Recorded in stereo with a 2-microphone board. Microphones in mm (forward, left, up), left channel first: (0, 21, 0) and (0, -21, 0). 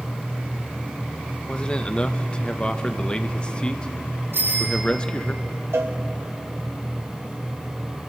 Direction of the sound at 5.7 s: 70° right (ahead or behind).